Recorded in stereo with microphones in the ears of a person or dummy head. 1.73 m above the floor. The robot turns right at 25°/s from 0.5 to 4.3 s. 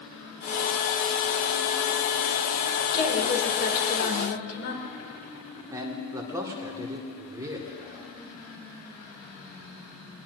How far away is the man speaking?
About 1.9 m.